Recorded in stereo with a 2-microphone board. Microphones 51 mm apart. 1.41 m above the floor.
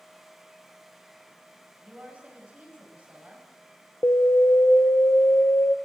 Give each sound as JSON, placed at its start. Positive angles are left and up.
{"t": 1.8, "sound": "a woman speaking", "side_deg": -25, "distance_m": 9.0}
{"t": 4.0, "sound": "an alarm", "side_deg": 75, "distance_m": 1.0}